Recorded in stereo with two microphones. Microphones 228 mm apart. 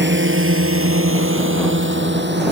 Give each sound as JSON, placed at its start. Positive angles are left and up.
{"t": 0.0, "sound": "a drone", "side_deg": -55}